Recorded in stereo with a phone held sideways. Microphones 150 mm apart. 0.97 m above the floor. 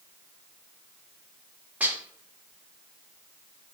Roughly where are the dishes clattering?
Centre.